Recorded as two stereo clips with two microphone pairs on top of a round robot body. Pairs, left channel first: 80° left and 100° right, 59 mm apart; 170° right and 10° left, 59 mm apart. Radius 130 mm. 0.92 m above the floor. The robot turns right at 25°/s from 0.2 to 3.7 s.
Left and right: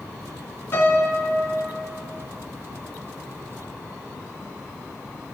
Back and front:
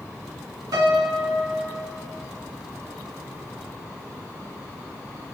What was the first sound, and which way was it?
A piano, 25° left.